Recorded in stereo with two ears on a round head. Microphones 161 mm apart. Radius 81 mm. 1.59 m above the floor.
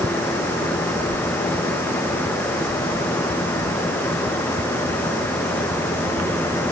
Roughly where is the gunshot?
I don't hear a gunshot.